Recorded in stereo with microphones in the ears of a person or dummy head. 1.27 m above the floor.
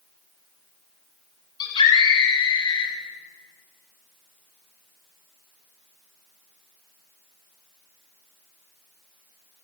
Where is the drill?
No drill in this recording.